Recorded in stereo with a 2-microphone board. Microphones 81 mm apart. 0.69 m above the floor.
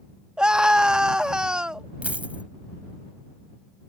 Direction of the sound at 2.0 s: 20° right (ahead or behind).